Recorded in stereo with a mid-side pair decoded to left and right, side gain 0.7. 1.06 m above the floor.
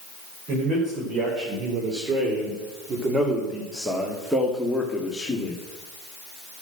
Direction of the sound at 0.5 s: 50° right.